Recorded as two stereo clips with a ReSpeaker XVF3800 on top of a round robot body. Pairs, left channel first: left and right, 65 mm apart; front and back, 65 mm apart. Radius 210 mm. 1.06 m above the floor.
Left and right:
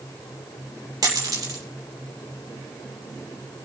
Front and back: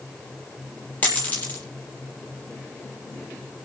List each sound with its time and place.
1.0 s a dropped coin: 65° right, 6 m